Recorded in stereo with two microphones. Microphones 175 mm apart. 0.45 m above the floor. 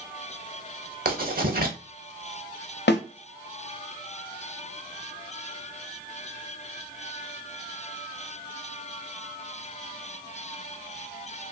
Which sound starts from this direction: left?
A snare drum, at 2.9 s.